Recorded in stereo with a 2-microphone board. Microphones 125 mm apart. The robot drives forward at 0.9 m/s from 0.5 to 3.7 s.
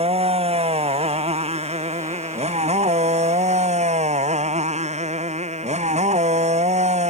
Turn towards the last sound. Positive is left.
turn(degrees=-65)  # may be behind; listen again after turning